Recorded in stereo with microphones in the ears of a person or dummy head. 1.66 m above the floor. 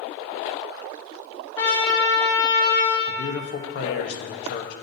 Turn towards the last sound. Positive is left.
turn(degrees=65)  # may be behind; listen again after turning